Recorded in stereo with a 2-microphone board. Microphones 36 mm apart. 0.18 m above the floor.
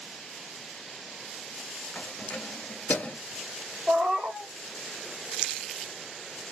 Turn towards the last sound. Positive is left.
turn(degrees=-40)  # may be behind; listen again after turning